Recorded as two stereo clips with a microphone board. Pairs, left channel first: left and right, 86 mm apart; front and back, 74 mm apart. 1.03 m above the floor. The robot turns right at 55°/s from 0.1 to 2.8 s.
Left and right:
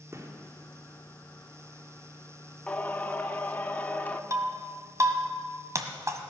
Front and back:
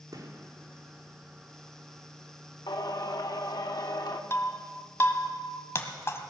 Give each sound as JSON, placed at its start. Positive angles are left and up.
{"t": 0.1, "sound": "a gunshot", "azimuth_deg": -150, "distance_m": 2.0}
{"t": 2.7, "sound": "singing", "azimuth_deg": 15, "distance_m": 1.0}
{"t": 4.3, "sound": "breaking glass", "azimuth_deg": -45, "distance_m": 1.4}